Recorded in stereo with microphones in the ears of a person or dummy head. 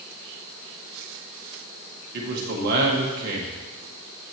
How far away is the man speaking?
About 1.7 m.